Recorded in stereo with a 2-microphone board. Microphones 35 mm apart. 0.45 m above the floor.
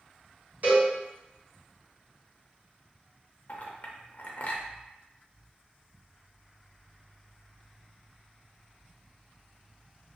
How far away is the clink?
About 0.5 m.